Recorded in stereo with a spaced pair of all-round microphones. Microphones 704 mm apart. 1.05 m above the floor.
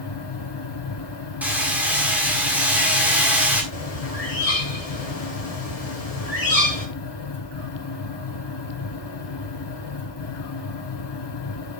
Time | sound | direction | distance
0.0 | a fan | 40° left (ahead or behind) | 0.7 m
1.4 | hammering | centre (ahead or behind) | 1.7 m
3.7 | a bird | 55° left (ahead or behind) | 1.9 m